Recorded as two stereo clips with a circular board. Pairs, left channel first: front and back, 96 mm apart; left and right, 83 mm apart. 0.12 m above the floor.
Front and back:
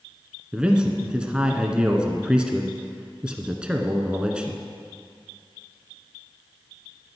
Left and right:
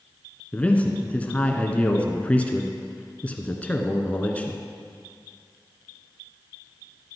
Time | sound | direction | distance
0.5 | a man speaking | 120° left | 1.1 m